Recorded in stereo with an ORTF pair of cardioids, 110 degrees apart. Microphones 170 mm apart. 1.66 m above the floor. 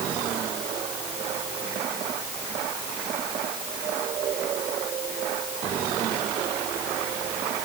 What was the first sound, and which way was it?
Only background noise.